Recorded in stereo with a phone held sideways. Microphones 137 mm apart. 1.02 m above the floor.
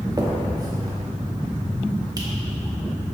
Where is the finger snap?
25° right (ahead or behind), 1.7 m.